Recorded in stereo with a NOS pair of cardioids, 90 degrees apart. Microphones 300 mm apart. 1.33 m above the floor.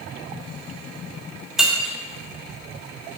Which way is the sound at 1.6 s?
Straight ahead.